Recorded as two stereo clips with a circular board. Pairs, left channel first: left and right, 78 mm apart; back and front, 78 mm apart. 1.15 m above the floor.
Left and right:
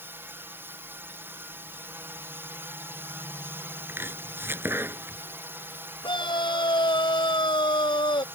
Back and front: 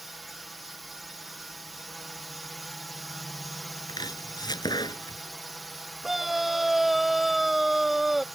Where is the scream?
90° left.